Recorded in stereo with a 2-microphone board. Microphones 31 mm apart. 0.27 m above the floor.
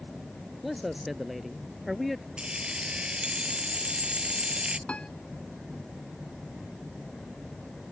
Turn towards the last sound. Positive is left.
turn(degrees=40)  # may be behind; listen again after turning